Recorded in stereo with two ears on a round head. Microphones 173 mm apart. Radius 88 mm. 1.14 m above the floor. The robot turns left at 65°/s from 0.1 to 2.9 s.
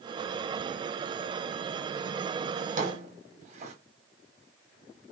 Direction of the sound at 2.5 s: 50° right (ahead or behind).